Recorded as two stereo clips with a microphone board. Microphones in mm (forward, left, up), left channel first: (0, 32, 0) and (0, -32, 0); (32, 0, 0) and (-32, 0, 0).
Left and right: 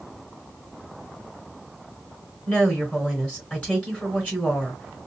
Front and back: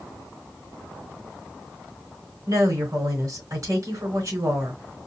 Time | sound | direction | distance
2.5 | a woman speaking | 155° left | 3.5 m